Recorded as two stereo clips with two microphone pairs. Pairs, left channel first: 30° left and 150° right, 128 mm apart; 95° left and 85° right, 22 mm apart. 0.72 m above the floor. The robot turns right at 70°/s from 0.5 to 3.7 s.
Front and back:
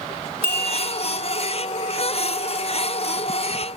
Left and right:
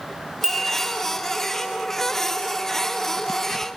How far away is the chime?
About 8 m.